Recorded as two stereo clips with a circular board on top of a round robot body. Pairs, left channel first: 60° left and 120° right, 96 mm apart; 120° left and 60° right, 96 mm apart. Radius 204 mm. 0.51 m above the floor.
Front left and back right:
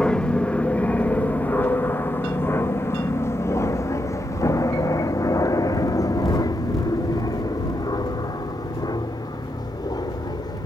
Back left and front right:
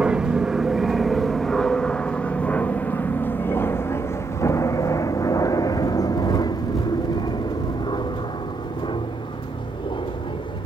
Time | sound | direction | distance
0.0 | an aircraft | straight ahead | ?